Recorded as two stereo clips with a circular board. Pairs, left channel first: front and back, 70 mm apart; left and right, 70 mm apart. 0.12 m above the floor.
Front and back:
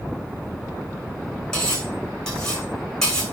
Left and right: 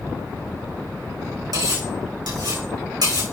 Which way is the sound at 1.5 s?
80° right.